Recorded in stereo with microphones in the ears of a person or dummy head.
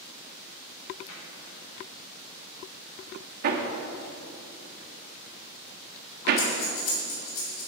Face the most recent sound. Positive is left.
turn(degrees=60)  # may be behind; listen again after turning